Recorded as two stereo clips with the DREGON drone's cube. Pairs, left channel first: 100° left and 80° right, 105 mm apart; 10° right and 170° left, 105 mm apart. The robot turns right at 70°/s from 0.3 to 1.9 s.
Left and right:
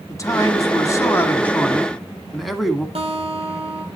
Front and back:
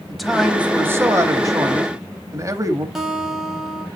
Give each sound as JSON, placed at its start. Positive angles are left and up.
{"t": 0.1, "sound": "a man speaking", "azimuth_deg": 80, "distance_m": 1.1}
{"t": 3.0, "sound": "a guitar", "azimuth_deg": -105, "distance_m": 2.5}